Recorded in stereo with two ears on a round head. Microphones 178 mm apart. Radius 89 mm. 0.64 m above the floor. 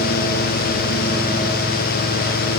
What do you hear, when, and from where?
Only background noise.